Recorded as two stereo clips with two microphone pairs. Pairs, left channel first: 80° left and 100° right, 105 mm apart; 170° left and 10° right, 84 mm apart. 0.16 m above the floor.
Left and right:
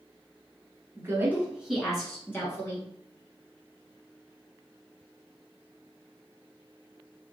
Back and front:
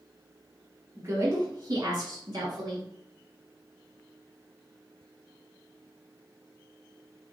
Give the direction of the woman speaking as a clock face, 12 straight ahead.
2 o'clock.